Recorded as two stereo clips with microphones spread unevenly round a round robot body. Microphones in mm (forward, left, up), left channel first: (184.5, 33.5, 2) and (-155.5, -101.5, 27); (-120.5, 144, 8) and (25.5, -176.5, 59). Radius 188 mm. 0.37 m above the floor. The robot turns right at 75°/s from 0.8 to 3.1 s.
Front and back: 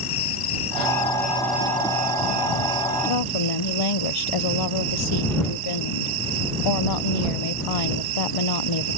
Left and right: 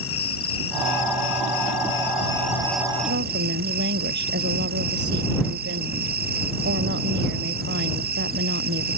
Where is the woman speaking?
5° right; by 9.0 s straight ahead.